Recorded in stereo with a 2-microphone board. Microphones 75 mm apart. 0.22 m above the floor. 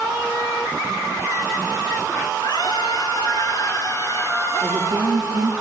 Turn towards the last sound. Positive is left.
turn(degrees=-60)  # may be behind; listen again after turning